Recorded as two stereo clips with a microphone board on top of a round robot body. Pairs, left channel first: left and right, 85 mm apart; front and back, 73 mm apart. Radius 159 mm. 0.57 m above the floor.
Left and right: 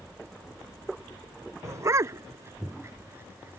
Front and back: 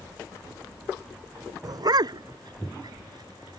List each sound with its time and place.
1.6 s a dog barking: 145° right; by 3.6 s 155° right